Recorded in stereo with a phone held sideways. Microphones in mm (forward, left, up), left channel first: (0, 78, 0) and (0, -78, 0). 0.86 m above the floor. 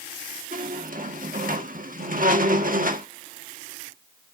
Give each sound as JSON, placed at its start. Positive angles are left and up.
{"t": 0.5, "sound": "a squeak", "side_deg": -70, "distance_m": 1.2}